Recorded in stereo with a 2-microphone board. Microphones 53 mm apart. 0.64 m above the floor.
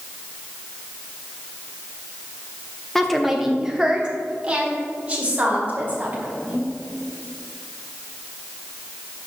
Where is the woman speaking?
5° left (ahead or behind), 0.8 m; by 6.7 s 30° right (ahead or behind), 3 m.